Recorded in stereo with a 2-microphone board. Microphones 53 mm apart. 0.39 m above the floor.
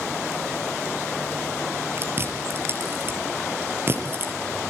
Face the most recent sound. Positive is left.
turn(degrees=-45)  # may be behind; listen again after turning